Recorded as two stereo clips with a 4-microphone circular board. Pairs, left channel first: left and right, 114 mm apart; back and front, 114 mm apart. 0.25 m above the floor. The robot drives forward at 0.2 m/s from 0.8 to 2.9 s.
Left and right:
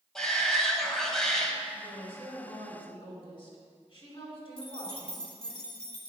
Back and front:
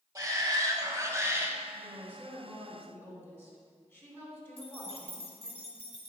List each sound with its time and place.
0.1 s a shout: 10° left, 1.1 m; by 1.6 s 15° left, 1.0 m
1.7 s a woman speaking: 110° left, 2.5 m; by 5.6 s 115° left, 2.5 m
4.6 s keys jangling: 170° left, 1.9 m